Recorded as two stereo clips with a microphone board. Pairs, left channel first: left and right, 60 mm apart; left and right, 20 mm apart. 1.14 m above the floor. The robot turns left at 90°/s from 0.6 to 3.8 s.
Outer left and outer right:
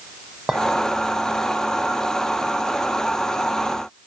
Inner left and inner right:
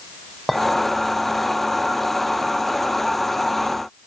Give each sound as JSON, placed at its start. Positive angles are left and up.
{"t": 0.5, "sound": "a clink", "side_deg": -20, "distance_m": 4.0}